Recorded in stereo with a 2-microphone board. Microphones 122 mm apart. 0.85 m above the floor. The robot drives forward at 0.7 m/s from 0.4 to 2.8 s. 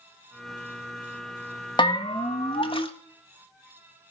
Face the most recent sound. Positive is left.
turn(degrees=45)  # may be behind; listen again after turning